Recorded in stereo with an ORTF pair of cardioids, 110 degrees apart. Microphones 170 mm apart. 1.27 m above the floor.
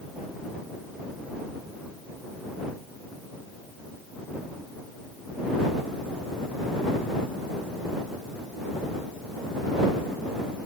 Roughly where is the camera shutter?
I don't hear a camera shutter.